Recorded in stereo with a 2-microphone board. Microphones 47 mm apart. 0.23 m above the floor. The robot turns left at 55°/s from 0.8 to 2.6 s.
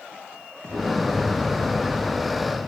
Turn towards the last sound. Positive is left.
turn(degrees=-140)